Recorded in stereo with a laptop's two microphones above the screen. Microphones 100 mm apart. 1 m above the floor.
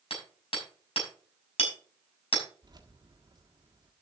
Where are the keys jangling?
45° right (ahead or behind), 1.4 m.